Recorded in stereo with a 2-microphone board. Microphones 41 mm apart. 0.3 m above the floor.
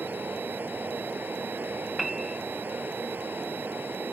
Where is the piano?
5° right (ahead or behind).